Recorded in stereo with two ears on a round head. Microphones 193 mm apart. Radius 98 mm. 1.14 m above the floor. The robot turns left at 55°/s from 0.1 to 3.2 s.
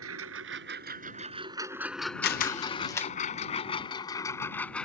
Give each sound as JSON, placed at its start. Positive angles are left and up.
{"t": 0.0, "sound": "a lawn mower", "side_deg": -75}
{"t": 2.2, "sound": "a camera shutter", "side_deg": 45}